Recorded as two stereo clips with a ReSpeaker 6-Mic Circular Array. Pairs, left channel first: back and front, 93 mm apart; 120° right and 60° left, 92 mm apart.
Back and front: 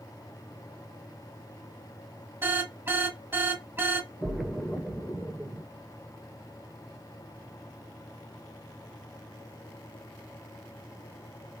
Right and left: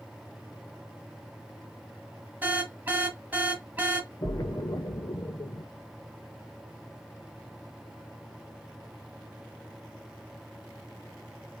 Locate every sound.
2.4 s an alarm: 20° left, 0.7 m
4.2 s a splash: 80° right, 0.6 m